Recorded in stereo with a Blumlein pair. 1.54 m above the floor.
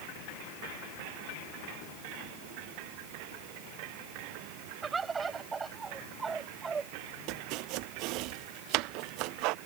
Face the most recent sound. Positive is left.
turn(degrees=-40)